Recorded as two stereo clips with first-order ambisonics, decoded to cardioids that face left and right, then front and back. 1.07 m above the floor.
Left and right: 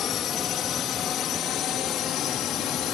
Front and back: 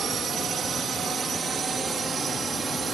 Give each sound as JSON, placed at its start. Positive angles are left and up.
{"t": 0.0, "sound": "a drone", "azimuth_deg": 130}